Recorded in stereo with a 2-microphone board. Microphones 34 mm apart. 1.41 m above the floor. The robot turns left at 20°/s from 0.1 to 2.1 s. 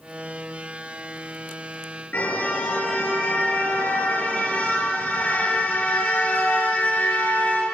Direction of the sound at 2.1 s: 60° left (ahead or behind).